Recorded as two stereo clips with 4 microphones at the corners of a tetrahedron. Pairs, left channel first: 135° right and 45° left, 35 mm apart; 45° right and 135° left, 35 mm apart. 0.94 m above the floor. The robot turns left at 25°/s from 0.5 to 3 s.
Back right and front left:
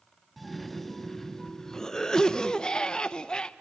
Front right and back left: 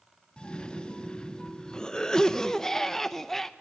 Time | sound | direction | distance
0.4 | a cough | 50° right | 0.5 m